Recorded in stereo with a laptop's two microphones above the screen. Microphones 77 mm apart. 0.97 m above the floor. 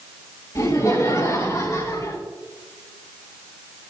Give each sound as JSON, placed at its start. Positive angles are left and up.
{"t": 0.6, "sound": "laughter", "side_deg": 55, "distance_m": 5.0}